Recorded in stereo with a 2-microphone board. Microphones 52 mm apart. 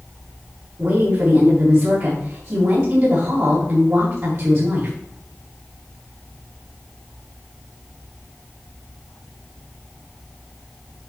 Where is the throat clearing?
I don't hear throat clearing.